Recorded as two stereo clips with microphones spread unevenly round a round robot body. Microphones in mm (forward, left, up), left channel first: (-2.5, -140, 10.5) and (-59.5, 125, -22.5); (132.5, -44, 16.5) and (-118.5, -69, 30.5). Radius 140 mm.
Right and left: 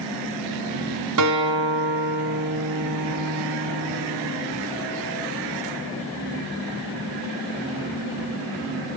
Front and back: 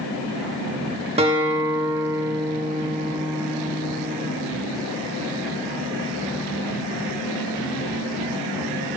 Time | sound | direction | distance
1.2 | a guitar | 115° left | 1.6 m